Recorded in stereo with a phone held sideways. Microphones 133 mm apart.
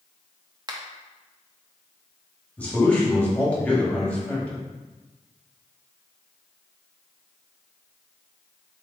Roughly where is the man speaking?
Centre.